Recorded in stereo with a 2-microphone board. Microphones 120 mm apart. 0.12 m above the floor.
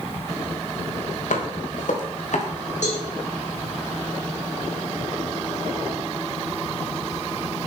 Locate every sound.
1.3 s footsteps: 90° left, 3 m; by 2.5 s 70° left (ahead or behind), 3 m
2.8 s a cowbell: 75° left (ahead or behind), 6.5 m